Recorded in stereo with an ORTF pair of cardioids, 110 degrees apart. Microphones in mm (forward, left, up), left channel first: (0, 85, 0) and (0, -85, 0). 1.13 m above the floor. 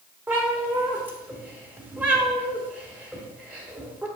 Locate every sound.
0.3 s a cat meowing: 10° right, 2 m